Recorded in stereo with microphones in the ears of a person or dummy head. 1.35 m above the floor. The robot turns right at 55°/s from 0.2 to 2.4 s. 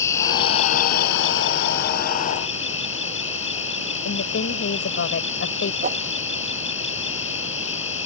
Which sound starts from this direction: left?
A woman speaking, at 4.0 s.